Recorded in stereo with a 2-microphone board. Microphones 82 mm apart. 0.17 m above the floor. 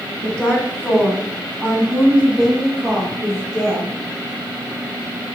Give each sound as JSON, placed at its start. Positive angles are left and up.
{"t": 0.2, "sound": "a woman speaking", "side_deg": 15, "distance_m": 1.3}